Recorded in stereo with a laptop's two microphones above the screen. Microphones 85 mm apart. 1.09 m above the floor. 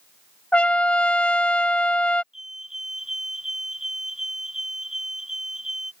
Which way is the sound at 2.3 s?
5° right (ahead or behind).